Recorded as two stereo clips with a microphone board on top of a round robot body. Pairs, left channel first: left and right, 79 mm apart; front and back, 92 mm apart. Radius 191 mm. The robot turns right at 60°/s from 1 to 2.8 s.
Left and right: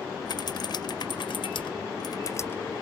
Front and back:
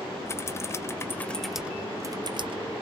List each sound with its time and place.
0.3 s typing on a keyboard: 60° left; by 2.7 s 160° left